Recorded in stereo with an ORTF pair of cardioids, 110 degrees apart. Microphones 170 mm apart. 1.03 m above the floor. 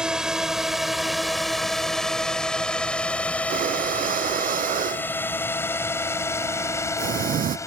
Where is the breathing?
55° right.